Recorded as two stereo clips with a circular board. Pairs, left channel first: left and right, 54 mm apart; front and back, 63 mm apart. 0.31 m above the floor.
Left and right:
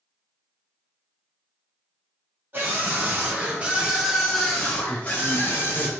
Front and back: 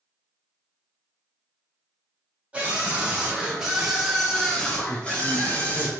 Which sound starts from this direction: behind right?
A scream, at 2.5 s.